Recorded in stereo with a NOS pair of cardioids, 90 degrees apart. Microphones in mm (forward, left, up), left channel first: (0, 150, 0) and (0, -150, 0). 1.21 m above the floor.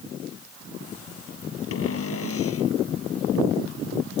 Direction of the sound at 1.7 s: 50° left.